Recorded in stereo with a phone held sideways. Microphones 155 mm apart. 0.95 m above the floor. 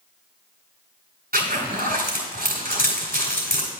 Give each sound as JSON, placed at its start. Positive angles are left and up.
{"t": 1.3, "sound": "a zipper", "side_deg": -80, "distance_m": 3.0}